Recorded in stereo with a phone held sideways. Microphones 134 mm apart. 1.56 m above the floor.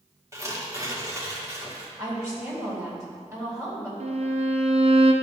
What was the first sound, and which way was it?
Tearing paper, 20° right (ahead or behind).